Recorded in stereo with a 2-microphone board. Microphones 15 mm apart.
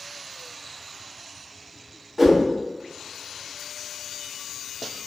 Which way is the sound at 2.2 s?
10° right (ahead or behind).